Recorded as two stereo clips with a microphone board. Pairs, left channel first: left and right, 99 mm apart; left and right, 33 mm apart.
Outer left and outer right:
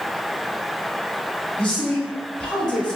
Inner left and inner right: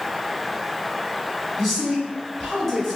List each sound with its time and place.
1.6 s a man speaking: 10° left (ahead or behind), 1.4 m